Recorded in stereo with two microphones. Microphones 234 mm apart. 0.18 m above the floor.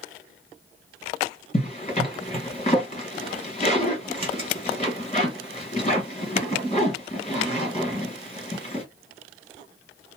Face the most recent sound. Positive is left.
turn(degrees=30)  # may be behind; listen again after turning